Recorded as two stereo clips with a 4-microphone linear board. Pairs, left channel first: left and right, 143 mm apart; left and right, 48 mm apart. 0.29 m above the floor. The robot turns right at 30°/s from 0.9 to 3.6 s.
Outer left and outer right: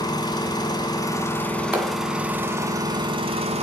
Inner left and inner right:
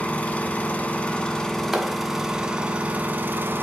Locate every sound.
0.0 s an engine running: 150° left, 1.1 m; by 3.6 s 130° right, 1.1 m
1.7 s a clap: 10° right (ahead or behind), 1.7 m; by 2.0 s 20° right (ahead or behind), 1.7 m